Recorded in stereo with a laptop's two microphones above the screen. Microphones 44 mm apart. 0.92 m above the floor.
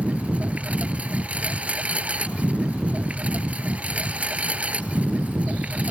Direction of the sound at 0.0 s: 30° right (ahead or behind).